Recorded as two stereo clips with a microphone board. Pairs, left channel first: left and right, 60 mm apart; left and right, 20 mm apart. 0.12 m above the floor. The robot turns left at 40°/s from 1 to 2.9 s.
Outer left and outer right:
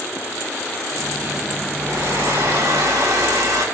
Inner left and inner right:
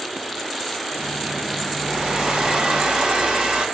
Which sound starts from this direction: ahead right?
A hair dryer, at 1.8 s.